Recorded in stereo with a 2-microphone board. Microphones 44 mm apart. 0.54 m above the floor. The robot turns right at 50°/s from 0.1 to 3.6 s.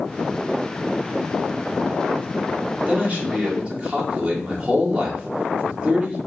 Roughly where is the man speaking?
Right.